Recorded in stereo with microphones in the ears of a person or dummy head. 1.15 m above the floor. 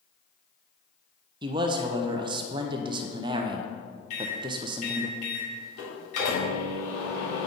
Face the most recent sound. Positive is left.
turn(degrees=50)  # may be behind; listen again after turning